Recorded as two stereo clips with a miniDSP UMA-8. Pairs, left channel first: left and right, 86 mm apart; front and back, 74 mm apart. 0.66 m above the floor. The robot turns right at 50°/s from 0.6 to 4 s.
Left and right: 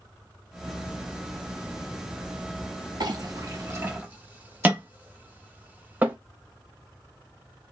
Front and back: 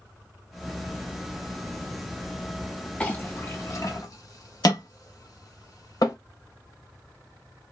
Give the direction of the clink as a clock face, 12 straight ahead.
2 o'clock.